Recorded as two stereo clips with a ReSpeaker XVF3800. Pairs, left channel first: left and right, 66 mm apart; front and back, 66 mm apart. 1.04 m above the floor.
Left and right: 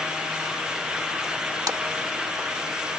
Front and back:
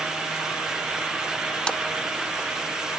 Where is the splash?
75° right.